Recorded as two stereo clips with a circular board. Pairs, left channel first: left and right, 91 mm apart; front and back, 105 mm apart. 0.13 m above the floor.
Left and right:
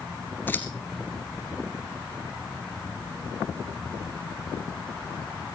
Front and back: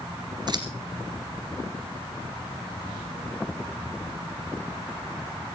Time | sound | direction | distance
0.5 | scissors | 150° left | 2 m